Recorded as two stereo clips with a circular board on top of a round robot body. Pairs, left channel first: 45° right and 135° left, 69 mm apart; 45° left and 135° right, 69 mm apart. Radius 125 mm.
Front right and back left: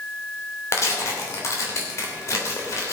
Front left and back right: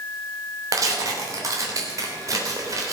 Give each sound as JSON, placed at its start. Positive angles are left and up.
{"t": 0.7, "sound": "tearing paper", "azimuth_deg": -95, "distance_m": 3.0}